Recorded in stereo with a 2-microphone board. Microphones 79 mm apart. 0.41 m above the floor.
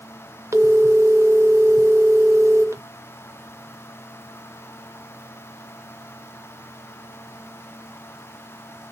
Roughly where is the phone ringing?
Right.